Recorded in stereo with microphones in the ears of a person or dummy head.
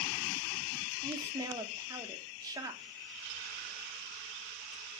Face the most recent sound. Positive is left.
turn(degrees=-20)  # may be behind; listen again after turning